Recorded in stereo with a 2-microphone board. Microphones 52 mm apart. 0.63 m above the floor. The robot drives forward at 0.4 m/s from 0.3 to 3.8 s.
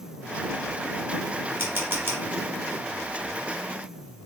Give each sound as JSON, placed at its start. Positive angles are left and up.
{"t": 1.6, "sound": "a camera shutter", "side_deg": -40, "distance_m": 1.7}